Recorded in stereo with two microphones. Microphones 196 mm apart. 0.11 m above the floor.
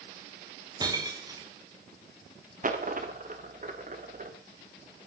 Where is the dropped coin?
45° right (ahead or behind), 3 m.